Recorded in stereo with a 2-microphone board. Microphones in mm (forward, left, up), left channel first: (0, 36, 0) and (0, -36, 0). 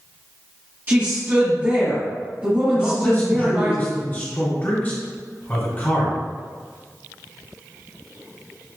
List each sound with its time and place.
0.9 s a woman speaking: 30° right (ahead or behind), 1.3 m
2.8 s a man speaking: 30° left (ahead or behind), 2.0 m